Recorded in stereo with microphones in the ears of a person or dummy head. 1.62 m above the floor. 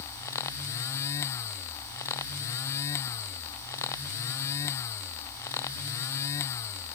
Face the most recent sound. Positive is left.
No sound to turn to.